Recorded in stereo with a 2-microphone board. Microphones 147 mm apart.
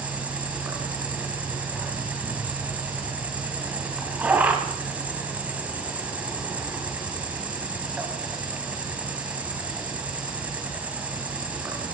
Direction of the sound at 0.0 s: 10° right (ahead or behind).